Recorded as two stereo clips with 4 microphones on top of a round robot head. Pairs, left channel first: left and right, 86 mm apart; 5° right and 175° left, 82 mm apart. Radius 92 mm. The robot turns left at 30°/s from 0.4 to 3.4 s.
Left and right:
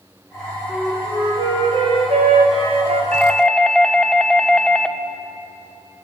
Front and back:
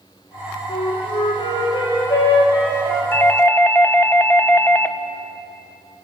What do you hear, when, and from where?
0.7 s a flute: 20° right, 3.5 m; by 3.0 s 90° right, 3.5 m
3.1 s a doorbell: 25° left, 1.4 m; by 5.0 s 20° left, 1.4 m